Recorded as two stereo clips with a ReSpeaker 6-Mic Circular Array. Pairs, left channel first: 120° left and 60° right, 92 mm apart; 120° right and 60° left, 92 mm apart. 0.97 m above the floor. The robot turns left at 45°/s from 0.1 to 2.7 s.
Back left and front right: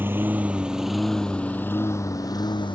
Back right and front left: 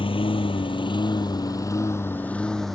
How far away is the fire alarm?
No fire alarm in this recording.